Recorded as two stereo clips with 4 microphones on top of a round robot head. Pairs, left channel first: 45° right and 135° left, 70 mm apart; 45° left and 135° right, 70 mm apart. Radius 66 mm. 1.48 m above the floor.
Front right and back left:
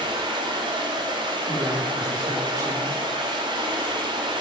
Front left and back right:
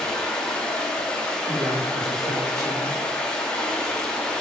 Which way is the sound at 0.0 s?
125° left.